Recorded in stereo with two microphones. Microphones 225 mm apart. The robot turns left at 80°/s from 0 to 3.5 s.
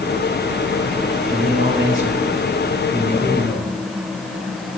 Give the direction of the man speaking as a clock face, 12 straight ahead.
12 o'clock.